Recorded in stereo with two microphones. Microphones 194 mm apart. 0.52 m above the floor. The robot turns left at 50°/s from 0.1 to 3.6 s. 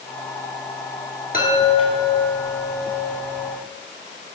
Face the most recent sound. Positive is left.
turn(degrees=-60)